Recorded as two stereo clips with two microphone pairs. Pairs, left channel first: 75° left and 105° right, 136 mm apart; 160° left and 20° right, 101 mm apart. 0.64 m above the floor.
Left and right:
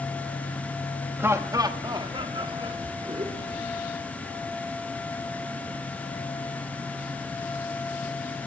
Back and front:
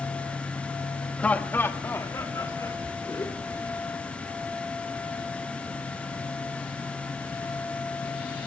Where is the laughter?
140° right, 0.9 m; by 3.9 s 145° right, 2 m.